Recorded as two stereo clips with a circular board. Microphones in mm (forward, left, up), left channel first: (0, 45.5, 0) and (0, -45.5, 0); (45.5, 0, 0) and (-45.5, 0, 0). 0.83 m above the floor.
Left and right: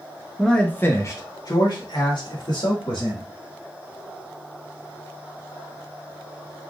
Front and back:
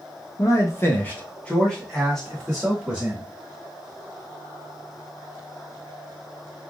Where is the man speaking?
10° left, 0.9 m; by 3.2 s 95° left, 2.5 m.